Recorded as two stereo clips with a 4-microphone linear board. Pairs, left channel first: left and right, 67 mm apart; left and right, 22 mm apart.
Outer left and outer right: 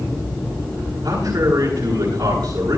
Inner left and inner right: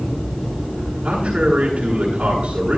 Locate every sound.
1.0 s a man speaking: 85° right, 9.5 m